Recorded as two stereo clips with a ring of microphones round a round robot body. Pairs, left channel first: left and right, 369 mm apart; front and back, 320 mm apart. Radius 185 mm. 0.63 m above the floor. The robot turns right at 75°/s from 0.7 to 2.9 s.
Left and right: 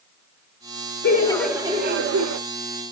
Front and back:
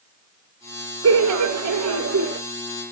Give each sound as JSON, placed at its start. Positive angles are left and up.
{"t": 1.0, "sound": "laughter", "azimuth_deg": 150, "distance_m": 1.0}